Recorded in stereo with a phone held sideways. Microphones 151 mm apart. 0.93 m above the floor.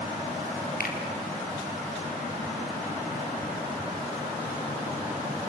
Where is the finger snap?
80° left, 3.5 m.